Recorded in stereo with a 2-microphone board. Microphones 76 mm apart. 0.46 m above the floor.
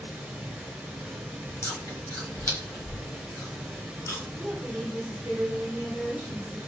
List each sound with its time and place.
0.0 s running water: 15° right (ahead or behind), 1.2 m
1.6 s chewing: 45° left (ahead or behind), 1.1 m
4.4 s a woman speaking: 5° right (ahead or behind), 1.3 m